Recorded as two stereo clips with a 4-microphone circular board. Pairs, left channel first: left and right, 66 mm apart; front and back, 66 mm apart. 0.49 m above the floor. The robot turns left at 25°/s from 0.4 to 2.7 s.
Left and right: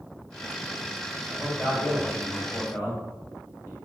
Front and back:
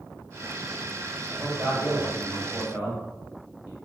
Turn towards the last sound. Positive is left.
turn(degrees=130)